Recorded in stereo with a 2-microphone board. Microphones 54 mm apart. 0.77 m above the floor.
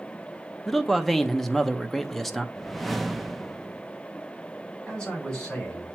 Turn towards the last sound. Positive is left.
turn(degrees=15)  # may be behind; listen again after turning